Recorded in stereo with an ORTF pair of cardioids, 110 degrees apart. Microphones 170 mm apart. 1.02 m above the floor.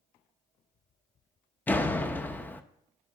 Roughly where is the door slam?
Ahead.